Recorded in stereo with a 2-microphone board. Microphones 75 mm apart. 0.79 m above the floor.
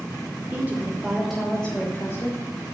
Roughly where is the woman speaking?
Right.